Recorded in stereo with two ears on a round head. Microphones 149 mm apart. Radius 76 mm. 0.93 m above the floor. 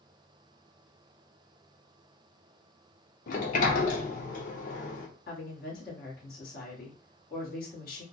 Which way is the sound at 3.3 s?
50° left (ahead or behind).